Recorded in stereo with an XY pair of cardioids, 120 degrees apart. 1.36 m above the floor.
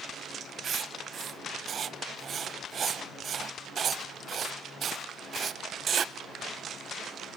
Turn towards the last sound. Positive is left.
turn(degrees=-40)